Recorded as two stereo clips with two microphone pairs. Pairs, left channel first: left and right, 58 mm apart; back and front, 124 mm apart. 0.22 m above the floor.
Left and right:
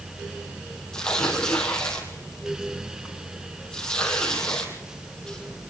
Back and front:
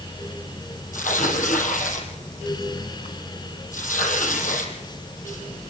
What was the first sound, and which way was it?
Tearing paper, 170° left.